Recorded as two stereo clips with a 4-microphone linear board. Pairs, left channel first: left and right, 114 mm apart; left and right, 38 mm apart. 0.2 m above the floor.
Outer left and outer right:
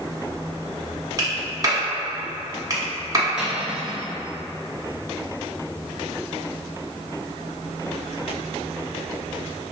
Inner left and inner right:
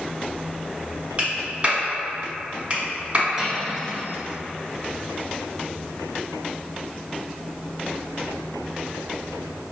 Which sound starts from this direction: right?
A clap, at 1.2 s.